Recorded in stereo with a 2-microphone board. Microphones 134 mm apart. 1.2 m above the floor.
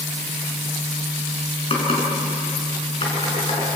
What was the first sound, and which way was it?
Typing on a keyboard, 45° left (ahead or behind).